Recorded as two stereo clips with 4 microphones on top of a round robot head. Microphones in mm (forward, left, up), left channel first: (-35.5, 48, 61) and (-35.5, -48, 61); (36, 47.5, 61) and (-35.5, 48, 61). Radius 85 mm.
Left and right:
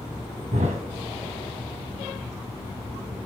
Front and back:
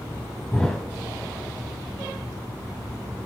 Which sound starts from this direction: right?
A thud, at 0.5 s.